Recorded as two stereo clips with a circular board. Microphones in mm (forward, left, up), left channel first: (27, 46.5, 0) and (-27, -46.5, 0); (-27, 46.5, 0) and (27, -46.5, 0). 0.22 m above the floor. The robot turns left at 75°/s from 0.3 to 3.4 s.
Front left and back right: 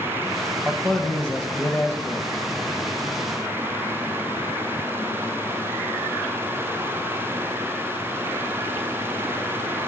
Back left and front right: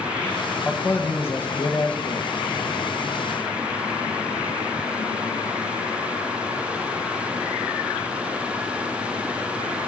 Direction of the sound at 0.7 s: 165° left.